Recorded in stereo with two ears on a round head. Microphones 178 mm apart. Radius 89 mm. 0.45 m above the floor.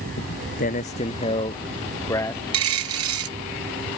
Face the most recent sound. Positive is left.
turn(degrees=-80)